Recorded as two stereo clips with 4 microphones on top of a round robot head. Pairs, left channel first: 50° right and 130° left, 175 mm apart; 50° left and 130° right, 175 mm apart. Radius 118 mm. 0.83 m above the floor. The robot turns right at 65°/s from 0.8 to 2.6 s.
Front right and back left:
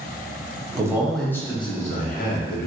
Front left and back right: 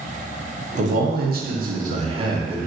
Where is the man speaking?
165° right, 0.9 m; by 2.7 s 50° right, 0.9 m.